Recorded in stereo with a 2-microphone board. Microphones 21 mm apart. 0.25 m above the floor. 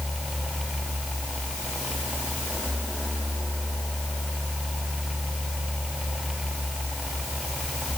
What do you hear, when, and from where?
Only background noise.